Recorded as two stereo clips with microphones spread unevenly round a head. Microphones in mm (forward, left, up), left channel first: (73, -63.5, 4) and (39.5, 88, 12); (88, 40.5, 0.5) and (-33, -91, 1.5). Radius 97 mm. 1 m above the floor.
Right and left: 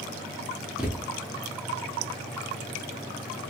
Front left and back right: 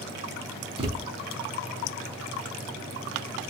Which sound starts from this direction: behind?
A thud, at 0.8 s.